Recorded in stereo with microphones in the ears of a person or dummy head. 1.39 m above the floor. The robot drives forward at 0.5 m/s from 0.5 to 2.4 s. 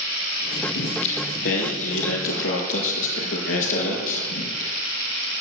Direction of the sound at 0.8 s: 70° left (ahead or behind).